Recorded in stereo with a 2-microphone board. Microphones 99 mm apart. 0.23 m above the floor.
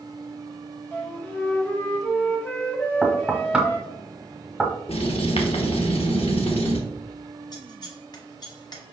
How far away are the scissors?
About 1.0 m.